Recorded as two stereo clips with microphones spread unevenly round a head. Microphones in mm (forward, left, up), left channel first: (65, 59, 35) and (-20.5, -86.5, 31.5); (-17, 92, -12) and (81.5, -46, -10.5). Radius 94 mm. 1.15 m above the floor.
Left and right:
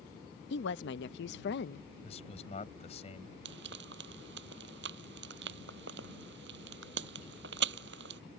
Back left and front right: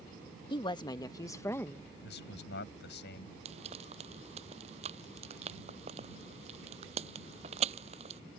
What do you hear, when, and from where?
0.5 s a woman speaking: 65° left; by 1.9 s 45° left
2.0 s a man speaking: 115° left
3.5 s frying: 110° right